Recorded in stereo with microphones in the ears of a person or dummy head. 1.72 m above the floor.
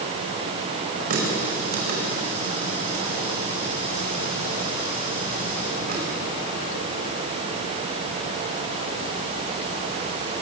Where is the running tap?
50° right (ahead or behind), 5 m.